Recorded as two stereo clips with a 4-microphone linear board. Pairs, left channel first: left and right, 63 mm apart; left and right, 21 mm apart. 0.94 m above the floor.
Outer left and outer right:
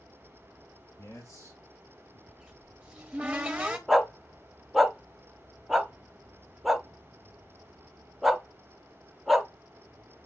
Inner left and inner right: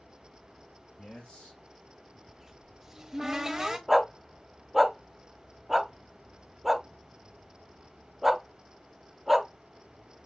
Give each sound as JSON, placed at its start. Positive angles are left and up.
{"t": 1.0, "sound": "a man speaking", "side_deg": 60, "distance_m": 3.5}
{"t": 2.3, "sound": "a cupboard door", "side_deg": -20, "distance_m": 0.9}
{"t": 3.9, "sound": "a dog barking", "side_deg": 0, "distance_m": 0.6}